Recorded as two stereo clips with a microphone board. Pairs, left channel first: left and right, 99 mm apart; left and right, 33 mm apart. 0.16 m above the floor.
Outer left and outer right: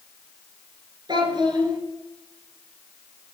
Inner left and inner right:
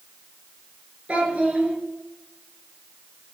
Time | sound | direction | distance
1.1 | a child speaking | 50° right (ahead or behind) | 2 m